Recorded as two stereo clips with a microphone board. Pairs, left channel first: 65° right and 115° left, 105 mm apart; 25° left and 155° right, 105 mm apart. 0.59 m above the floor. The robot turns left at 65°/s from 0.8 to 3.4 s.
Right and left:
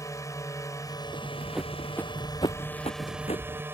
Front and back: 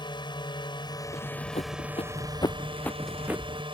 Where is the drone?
15° right; by 3.7 s straight behind.